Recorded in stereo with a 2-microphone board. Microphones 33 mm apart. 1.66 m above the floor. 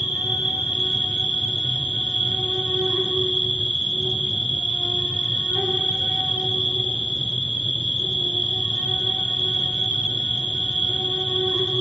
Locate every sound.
0.0 s an insect: 40° right (ahead or behind), 4 m